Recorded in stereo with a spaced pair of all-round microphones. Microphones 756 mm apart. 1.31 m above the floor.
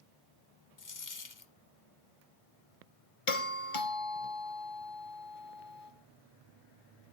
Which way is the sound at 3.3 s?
45° left (ahead or behind).